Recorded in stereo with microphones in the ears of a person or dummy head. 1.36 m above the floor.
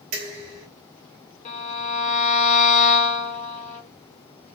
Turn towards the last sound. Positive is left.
turn(degrees=40)  # may be behind; listen again after turning